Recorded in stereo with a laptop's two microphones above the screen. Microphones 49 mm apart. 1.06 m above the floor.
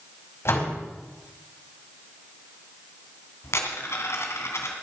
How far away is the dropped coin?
About 2.5 m.